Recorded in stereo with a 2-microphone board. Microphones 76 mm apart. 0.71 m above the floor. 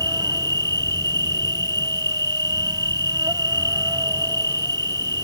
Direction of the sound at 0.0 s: 65° right (ahead or behind).